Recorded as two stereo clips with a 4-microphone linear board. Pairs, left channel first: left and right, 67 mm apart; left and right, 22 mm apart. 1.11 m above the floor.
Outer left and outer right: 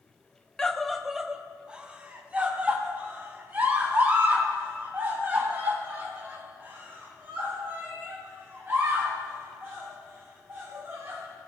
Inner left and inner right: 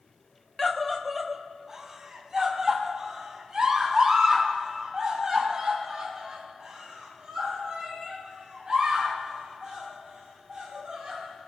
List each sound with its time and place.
0.6 s a scream: 10° left (ahead or behind), 0.6 m; by 11.2 s 35° right (ahead or behind), 6 m